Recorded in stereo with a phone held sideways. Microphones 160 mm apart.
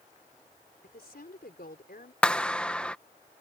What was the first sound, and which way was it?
A woman speaking, 80° left.